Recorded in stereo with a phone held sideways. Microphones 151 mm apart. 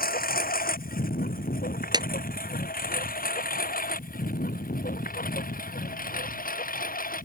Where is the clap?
25° right (ahead or behind).